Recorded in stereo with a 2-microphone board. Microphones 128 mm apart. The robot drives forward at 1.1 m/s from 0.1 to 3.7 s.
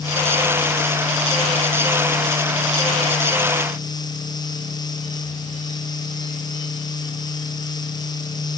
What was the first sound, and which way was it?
Only background noise.